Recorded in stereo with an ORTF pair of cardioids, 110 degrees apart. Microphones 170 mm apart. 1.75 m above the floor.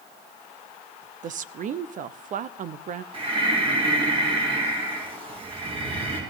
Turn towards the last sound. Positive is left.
turn(degrees=-35)